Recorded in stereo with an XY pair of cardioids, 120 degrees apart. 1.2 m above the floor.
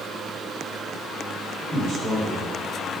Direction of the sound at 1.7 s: 35° right.